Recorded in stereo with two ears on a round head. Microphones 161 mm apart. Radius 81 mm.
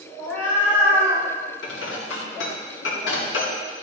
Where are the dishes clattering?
75° left (ahead or behind), 2 m.